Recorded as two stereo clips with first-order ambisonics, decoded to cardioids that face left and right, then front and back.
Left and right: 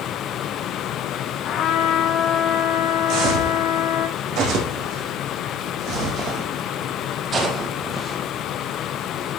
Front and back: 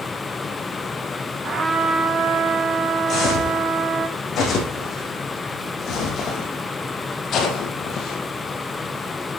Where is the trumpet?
120° left, 1.3 m.